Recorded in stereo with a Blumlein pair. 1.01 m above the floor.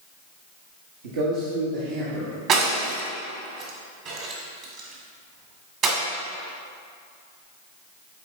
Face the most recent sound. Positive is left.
turn(degrees=-35)